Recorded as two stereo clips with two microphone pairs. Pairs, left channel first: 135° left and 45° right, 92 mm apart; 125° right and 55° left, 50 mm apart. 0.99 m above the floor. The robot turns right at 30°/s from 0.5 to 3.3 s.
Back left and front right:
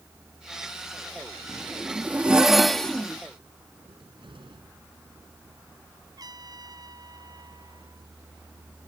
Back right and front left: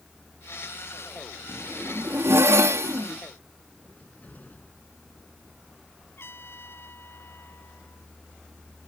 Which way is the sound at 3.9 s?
70° right.